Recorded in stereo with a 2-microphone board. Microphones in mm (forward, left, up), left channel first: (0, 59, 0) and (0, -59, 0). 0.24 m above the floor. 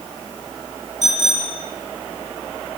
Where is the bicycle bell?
85° right, 6.5 m.